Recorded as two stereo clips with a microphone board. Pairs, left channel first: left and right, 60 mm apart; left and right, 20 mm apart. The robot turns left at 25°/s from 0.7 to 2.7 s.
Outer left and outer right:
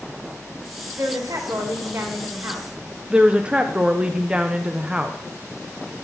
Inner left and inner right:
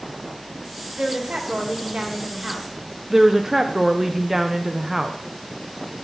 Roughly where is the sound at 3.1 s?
Centre.